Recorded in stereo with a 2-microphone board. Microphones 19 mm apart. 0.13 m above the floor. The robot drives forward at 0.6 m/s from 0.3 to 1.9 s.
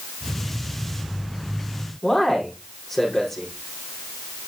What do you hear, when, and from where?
2.0 s a man speaking: 15° left (ahead or behind), 5.5 m